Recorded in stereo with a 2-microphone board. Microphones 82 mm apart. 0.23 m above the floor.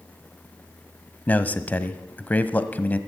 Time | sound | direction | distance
1.3 | a man speaking | 20° left (ahead or behind) | 1.0 m